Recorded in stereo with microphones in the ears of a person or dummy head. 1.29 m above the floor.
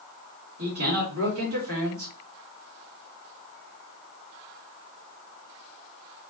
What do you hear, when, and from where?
0.6 s a man speaking: 75° right (ahead or behind), 1.8 m